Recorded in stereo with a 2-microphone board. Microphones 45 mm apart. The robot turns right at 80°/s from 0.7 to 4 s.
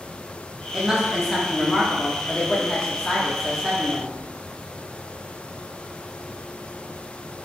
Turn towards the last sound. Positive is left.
turn(degrees=-10)  # may be behind; listen again after turning